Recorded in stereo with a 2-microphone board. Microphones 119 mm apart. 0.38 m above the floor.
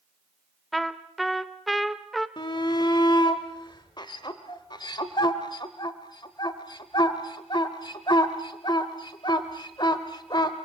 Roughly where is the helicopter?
No helicopter in this recording.